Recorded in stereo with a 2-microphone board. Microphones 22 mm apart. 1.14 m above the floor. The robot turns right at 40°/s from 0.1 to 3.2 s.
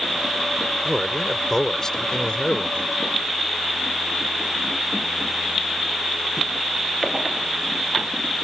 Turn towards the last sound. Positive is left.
turn(degrees=85)